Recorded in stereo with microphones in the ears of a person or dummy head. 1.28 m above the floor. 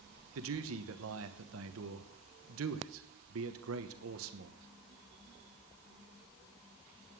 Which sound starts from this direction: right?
A man speaking, at 0.3 s.